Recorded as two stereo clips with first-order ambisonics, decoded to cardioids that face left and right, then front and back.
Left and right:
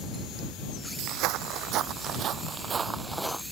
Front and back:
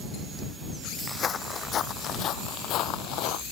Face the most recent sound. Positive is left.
turn(degrees=0)